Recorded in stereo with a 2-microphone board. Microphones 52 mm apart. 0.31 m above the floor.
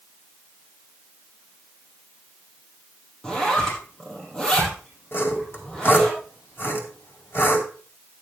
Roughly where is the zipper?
Centre.